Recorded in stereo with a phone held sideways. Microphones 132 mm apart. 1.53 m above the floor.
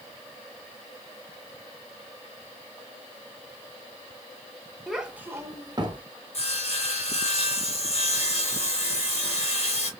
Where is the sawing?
50° left (ahead or behind), 1.3 m.